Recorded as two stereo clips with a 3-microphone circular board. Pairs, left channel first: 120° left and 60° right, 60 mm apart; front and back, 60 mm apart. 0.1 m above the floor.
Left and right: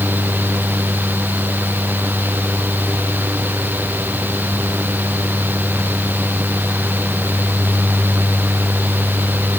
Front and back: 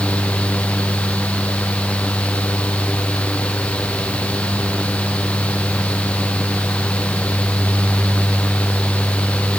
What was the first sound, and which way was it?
Only background noise.